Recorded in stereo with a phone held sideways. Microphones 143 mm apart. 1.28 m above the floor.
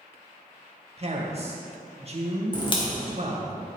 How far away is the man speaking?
About 1.7 m.